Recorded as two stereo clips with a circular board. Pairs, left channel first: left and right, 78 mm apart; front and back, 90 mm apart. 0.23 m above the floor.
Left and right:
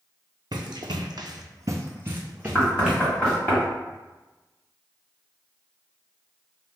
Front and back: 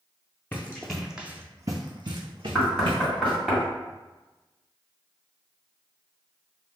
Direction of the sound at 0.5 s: 70° right.